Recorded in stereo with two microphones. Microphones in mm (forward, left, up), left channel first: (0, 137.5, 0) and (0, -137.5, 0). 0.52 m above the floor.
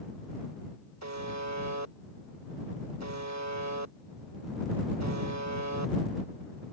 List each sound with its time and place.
1.0 s a buzzer: 75° right (ahead or behind)